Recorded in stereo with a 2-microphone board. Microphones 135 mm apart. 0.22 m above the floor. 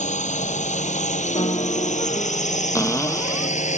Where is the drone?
65° left (ahead or behind).